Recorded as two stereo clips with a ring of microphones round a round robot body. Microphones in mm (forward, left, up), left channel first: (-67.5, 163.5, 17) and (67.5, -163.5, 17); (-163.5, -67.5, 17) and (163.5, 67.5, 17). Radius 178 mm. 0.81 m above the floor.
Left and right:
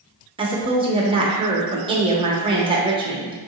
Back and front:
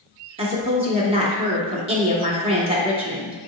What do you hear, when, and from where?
0.4 s a woman speaking: 20° right, 0.9 m